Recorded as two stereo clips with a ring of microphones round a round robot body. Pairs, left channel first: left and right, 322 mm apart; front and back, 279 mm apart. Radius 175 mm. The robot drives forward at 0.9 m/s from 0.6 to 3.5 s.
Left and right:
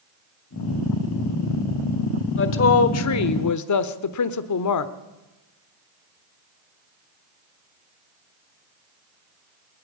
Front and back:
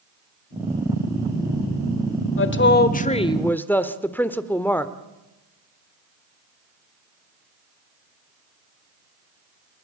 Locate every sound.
2.4 s a woman speaking: 40° left, 1.7 m; by 4.9 s 85° left, 1.2 m